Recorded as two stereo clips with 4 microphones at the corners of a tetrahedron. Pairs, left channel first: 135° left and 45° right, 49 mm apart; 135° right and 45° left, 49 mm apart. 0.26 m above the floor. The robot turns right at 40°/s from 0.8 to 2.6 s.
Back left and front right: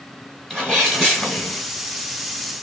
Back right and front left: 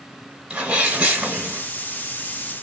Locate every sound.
0.5 s a sneeze: 70° left, 0.9 m; by 1.6 s 105° left, 0.9 m